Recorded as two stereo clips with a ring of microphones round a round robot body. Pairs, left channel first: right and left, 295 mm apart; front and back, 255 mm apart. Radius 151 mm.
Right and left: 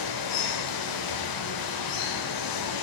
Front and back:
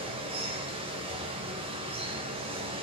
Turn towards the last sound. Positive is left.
turn(degrees=-105)